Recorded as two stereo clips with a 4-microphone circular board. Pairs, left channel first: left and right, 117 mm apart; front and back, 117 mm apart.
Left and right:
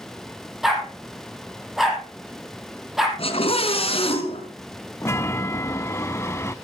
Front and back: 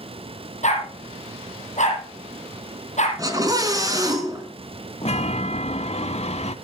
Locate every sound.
0.6 s a dog barking: 5° right, 3.5 m
3.2 s a scream: 120° left, 4 m
5.0 s a chime: 25° left, 0.7 m